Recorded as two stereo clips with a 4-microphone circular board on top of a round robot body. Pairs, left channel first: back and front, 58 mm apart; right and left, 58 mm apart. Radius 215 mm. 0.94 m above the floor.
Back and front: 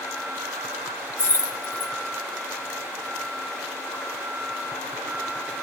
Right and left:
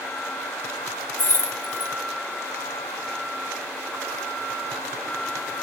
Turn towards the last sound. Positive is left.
turn(degrees=-135)